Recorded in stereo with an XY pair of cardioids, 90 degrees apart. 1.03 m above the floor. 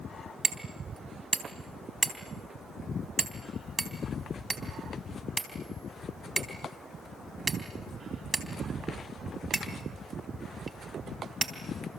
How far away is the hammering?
About 3.5 m.